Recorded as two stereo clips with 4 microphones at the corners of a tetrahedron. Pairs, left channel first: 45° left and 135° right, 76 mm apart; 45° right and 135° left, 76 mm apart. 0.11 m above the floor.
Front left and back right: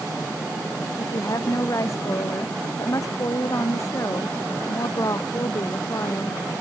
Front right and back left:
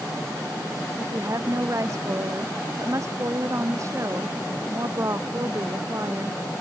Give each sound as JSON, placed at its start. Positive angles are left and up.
{"t": 1.0, "sound": "a woman speaking", "azimuth_deg": 90}